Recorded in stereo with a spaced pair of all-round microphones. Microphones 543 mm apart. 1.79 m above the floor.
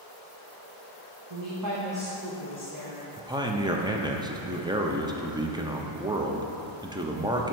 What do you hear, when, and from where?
1.3 s a woman speaking: 65° right (ahead or behind), 1.0 m; by 3.1 s 35° left (ahead or behind), 2 m
3.2 s a man speaking: 10° right (ahead or behind), 0.5 m